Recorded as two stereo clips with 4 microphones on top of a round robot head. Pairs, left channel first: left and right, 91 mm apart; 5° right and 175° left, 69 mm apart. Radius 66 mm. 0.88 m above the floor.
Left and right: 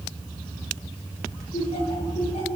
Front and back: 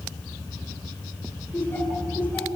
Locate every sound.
1.5 s laughter: 60° left, 8 m